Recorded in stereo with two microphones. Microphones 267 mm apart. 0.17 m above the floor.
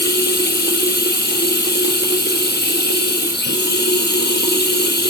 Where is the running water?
40° left (ahead or behind), 1.1 m.